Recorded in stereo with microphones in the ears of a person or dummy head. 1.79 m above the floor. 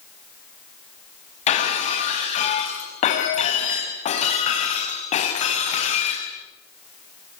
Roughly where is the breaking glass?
Left.